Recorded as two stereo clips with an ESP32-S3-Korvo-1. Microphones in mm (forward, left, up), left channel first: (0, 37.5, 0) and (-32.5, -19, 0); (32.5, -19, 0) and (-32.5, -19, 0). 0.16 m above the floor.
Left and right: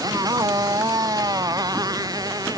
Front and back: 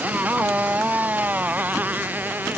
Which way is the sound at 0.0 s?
115° right.